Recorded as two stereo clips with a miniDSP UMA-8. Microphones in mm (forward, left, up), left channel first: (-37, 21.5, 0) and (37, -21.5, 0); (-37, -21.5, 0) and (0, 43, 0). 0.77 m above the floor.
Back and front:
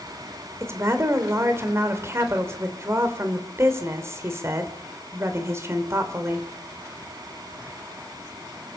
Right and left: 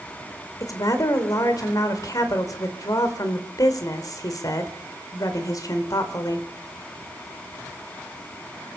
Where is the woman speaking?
85° right, 3 m.